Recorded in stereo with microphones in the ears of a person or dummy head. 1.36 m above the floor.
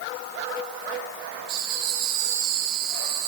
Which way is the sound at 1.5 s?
60° right (ahead or behind).